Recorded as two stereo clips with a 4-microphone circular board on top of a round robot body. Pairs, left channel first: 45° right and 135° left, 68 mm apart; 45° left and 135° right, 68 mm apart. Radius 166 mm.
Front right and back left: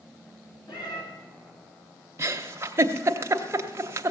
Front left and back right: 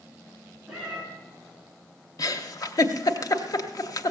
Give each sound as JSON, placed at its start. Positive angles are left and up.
{"t": 0.7, "sound": "a cat meowing", "azimuth_deg": -55, "distance_m": 3.0}
{"t": 2.2, "sound": "a giggle", "azimuth_deg": 80, "distance_m": 0.8}